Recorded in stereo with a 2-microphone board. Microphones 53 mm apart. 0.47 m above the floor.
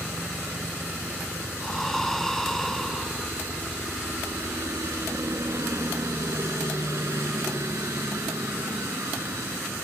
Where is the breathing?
5° left (ahead or behind).